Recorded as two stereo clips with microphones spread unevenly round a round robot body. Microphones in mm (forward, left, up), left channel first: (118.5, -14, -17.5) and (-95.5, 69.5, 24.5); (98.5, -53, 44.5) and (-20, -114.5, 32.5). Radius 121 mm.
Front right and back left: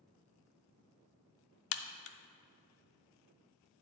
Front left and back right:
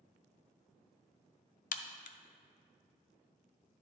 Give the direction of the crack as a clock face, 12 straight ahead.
12 o'clock.